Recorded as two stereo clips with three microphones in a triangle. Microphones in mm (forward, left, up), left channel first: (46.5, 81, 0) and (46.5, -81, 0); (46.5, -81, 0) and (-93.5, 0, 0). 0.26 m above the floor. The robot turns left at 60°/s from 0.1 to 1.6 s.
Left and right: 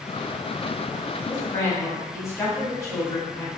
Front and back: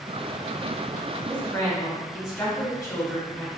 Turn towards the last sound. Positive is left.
turn(degrees=30)